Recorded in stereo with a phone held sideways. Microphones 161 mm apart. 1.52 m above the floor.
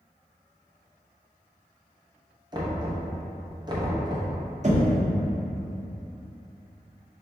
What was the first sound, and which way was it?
Knocking, 25° right (ahead or behind).